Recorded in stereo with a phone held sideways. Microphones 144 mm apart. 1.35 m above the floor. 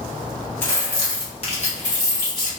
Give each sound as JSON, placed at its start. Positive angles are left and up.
{"t": 0.6, "sound": "keys jangling", "side_deg": 15, "distance_m": 1.3}